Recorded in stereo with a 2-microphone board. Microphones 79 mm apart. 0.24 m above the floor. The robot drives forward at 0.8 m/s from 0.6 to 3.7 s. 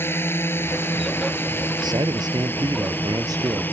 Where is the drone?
30° left (ahead or behind); by 3.7 s 25° left (ahead or behind).